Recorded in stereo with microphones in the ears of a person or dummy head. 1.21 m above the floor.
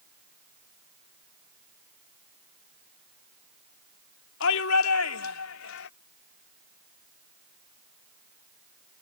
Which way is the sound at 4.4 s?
70° left (ahead or behind).